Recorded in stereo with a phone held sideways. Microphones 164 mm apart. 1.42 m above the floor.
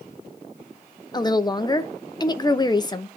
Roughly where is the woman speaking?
Left.